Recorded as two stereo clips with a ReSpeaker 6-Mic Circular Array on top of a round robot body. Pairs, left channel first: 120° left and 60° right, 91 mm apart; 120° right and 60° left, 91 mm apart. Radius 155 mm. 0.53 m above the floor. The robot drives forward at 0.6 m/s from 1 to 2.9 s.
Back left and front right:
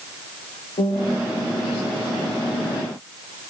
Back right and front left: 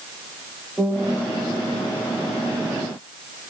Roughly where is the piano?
Behind left.